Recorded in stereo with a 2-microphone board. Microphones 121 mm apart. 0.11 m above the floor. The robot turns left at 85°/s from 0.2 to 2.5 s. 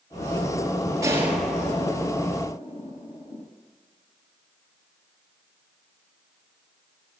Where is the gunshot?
25° right (ahead or behind), 2.5 m; by 3.4 s 55° left (ahead or behind), 2.5 m.